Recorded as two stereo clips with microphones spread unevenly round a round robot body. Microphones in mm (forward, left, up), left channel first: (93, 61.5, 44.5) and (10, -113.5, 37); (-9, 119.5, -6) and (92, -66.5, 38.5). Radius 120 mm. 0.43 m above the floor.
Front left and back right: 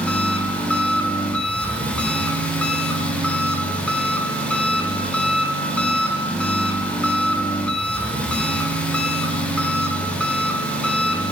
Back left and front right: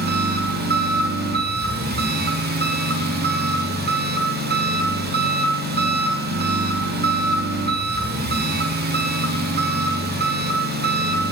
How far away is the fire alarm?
I don't hear a fire alarm.